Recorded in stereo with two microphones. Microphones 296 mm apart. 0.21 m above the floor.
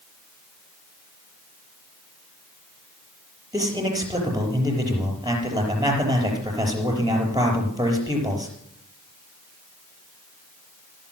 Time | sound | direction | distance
3.5 | a man speaking | 10° right (ahead or behind) | 5 m